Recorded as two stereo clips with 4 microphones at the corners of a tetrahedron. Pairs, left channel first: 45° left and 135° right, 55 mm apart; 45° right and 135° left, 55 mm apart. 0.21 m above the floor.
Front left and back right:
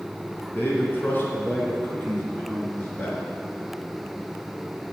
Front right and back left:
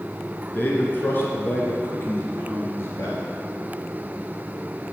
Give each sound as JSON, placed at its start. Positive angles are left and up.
{"t": 0.5, "sound": "a man speaking", "azimuth_deg": 5, "distance_m": 3.0}